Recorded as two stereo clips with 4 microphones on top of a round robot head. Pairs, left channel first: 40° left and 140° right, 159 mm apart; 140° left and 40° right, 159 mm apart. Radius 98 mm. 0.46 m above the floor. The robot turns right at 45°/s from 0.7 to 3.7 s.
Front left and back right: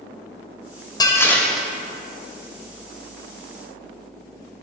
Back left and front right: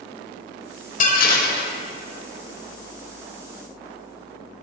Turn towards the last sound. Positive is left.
turn(degrees=-135)